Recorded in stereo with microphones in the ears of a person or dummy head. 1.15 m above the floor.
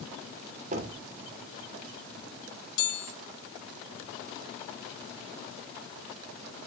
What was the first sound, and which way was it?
Knocking, 45° right (ahead or behind).